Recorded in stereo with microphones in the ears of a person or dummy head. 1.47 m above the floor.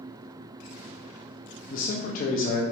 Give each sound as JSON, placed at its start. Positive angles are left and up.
{"t": 1.7, "sound": "a man speaking", "side_deg": 50, "distance_m": 0.5}